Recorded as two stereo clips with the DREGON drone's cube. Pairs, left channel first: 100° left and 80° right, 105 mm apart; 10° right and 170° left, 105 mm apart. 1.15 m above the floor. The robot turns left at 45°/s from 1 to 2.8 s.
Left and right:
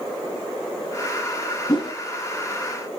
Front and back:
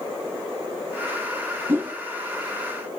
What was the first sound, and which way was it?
A whoosh, 115° left.